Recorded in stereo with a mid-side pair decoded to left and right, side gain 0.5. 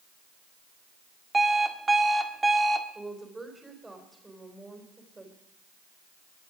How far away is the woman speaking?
About 4 m.